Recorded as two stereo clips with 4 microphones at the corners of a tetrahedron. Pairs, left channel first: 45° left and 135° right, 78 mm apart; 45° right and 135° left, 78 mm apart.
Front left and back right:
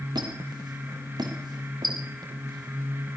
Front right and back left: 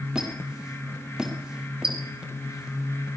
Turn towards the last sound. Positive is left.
turn(degrees=-145)